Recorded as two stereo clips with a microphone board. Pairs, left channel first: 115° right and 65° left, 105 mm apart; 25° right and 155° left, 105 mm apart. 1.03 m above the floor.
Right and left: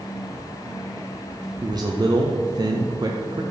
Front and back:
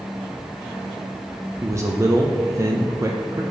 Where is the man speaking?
105° left, 0.5 m.